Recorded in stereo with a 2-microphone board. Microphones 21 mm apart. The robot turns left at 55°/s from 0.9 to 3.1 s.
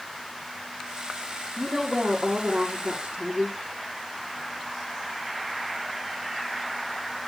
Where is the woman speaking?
25° right, 3.5 m; by 3.6 s 110° right, 3.5 m.